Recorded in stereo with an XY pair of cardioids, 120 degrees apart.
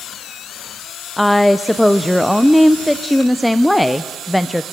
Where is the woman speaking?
5° left, 0.7 m.